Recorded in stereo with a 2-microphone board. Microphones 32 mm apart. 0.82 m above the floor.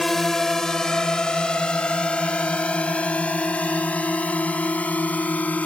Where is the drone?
10° left (ahead or behind); by 5.7 s 55° left (ahead or behind).